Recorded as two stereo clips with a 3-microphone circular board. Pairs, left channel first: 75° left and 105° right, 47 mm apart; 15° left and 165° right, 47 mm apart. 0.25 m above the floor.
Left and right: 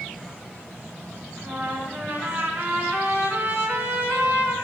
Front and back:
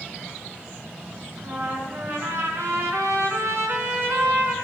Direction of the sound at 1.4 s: 155° right.